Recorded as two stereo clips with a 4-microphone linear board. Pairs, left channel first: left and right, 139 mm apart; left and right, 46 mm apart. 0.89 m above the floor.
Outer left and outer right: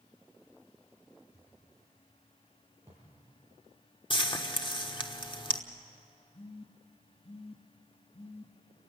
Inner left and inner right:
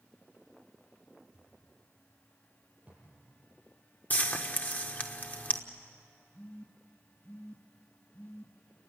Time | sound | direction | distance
1.3 | a thud | 20° right (ahead or behind) | 9.5 m
4.1 | frying | 35° left (ahead or behind) | 1.2 m
6.3 | a phone buzzing | 40° left (ahead or behind) | 1.0 m